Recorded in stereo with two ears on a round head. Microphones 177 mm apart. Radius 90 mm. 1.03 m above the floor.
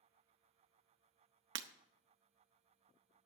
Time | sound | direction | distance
1.6 | breaking glass | 65° right (ahead or behind) | 0.7 m